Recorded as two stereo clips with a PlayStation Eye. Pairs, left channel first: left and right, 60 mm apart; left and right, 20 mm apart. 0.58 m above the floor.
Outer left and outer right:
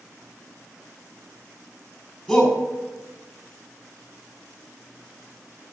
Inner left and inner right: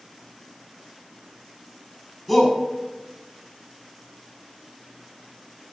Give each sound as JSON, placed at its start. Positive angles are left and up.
{"t": 2.3, "sound": "a shout", "side_deg": 0, "distance_m": 4.5}